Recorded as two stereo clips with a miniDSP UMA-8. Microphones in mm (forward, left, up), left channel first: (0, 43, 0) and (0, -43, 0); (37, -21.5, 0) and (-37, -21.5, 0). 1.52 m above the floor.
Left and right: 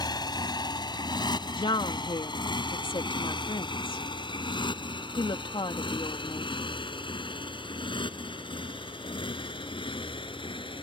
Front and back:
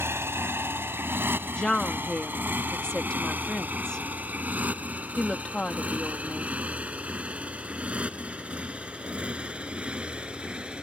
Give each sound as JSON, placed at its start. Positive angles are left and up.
{"t": 0.0, "sound": "a motorcycle", "azimuth_deg": 125}
{"t": 1.6, "sound": "a woman speaking", "azimuth_deg": 80}